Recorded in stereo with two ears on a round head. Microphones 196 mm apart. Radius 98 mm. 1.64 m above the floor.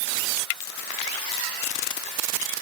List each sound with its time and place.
Only background noise.